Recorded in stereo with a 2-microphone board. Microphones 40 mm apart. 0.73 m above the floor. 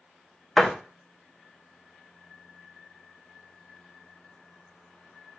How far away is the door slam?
About 0.6 m.